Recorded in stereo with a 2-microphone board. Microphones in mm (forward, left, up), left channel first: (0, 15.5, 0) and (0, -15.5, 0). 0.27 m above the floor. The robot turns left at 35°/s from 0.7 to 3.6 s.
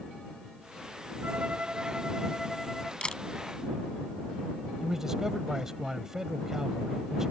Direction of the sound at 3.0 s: 35° left (ahead or behind).